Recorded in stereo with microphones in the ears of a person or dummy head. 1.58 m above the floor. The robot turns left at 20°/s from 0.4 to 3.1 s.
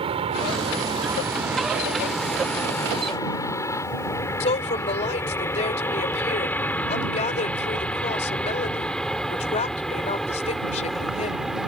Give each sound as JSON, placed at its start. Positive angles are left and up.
{"t": 0.0, "sound": "an aircraft", "side_deg": -30}
{"t": 4.4, "sound": "a woman speaking", "side_deg": 35}